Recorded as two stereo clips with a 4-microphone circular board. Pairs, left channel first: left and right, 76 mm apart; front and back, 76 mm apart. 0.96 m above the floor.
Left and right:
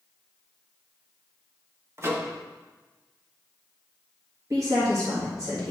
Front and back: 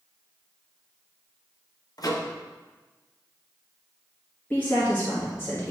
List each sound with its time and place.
2.0 s a microwave: 35° right, 0.8 m
4.5 s a woman speaking: 65° right, 1.4 m